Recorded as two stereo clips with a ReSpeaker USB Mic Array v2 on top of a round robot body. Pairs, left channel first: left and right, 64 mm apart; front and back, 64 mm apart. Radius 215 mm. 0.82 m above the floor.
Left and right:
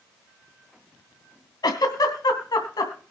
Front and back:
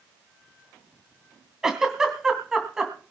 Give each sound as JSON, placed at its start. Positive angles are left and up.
{"t": 1.6, "sound": "a giggle", "azimuth_deg": 100, "distance_m": 2.5}